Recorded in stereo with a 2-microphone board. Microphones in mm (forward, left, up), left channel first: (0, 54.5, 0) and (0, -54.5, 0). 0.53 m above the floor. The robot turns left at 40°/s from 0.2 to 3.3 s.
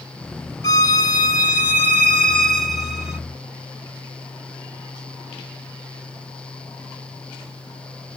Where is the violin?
85° left, 0.9 m; by 3.2 s 20° right, 0.9 m.